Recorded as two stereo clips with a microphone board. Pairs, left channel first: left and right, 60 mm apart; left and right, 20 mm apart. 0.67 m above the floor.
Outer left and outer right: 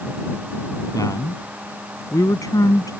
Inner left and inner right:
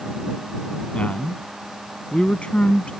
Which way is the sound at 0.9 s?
80° left.